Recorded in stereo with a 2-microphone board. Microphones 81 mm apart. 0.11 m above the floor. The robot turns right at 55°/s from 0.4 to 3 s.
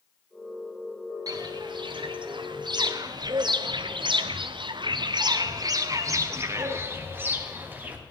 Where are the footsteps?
50° right (ahead or behind), 2 m; by 8.0 s 20° right (ahead or behind), 2.5 m.